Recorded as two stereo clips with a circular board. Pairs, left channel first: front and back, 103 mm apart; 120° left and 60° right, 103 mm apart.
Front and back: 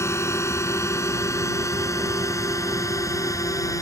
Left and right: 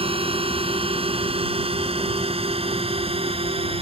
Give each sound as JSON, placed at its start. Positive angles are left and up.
{"t": 0.0, "sound": "a drone", "azimuth_deg": -60}